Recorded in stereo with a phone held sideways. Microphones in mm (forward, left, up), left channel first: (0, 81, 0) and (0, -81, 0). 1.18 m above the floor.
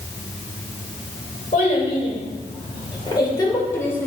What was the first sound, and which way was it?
A child speaking, 50° left (ahead or behind).